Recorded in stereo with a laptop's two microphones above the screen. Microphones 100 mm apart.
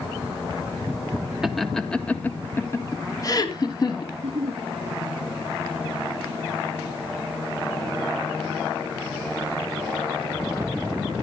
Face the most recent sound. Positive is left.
turn(degrees=-85)